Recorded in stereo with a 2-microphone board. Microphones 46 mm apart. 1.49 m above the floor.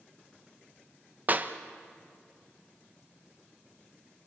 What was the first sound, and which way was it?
A clap, 35° right (ahead or behind).